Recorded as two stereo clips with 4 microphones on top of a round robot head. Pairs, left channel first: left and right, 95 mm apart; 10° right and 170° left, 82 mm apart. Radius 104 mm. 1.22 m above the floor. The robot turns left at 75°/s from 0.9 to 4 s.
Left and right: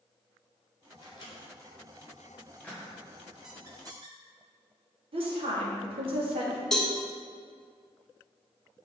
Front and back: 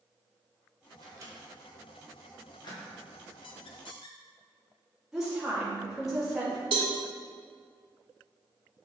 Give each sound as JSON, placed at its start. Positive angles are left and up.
{"t": 1.0, "sound": "a microwave", "azimuth_deg": 140, "distance_m": 1.8}
{"t": 3.4, "sound": "a squeak", "azimuth_deg": -5, "distance_m": 0.7}
{"t": 5.1, "sound": "a woman speaking", "azimuth_deg": -105, "distance_m": 2.0}
{"t": 6.7, "sound": "a cowbell", "azimuth_deg": 175, "distance_m": 1.2}